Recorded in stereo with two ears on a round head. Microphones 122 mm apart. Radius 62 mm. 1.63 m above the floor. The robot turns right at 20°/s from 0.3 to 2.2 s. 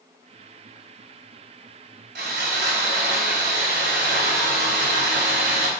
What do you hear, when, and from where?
2.1 s sawing: 80° right, 5 m